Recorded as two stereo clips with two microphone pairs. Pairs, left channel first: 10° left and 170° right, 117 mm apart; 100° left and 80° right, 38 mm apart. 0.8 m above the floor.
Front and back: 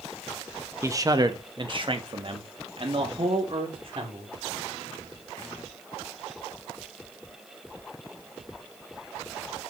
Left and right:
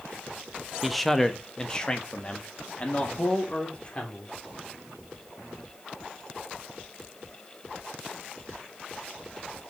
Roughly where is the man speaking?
Behind.